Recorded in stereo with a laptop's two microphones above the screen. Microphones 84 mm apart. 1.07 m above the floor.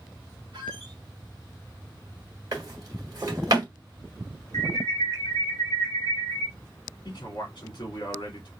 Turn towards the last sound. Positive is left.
turn(degrees=60)  # may be behind; listen again after turning